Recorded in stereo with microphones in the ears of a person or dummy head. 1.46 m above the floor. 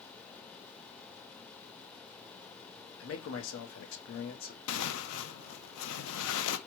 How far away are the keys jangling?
I don't hear keys jangling.